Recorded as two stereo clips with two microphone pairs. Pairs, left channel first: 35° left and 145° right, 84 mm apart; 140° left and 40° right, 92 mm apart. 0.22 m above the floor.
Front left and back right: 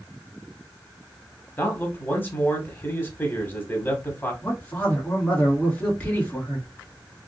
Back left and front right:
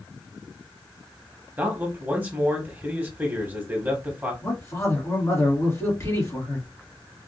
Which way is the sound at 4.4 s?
100° left.